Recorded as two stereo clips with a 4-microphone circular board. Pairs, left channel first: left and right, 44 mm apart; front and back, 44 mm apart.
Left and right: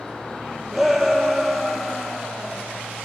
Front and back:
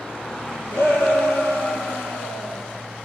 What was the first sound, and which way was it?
A shout, 5° right.